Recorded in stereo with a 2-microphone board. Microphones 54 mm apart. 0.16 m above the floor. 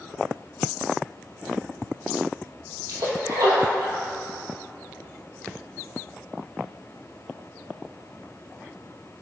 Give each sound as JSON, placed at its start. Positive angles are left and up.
{"t": 2.9, "sound": "a splash", "side_deg": -75, "distance_m": 2.0}